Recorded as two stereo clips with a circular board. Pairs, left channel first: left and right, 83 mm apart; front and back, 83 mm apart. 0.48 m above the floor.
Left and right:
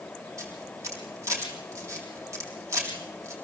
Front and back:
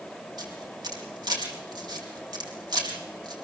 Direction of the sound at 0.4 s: 145° right.